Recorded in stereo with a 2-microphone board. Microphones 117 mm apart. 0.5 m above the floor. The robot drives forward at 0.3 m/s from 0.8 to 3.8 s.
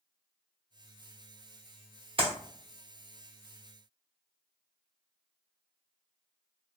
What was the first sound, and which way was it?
A clap, 45° right (ahead or behind).